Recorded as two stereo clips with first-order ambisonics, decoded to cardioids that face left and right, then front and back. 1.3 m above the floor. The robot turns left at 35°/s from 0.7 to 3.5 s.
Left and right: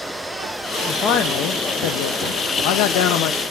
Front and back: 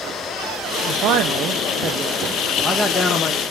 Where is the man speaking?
145° left, 0.5 m; by 3.4 s 60° left, 0.5 m.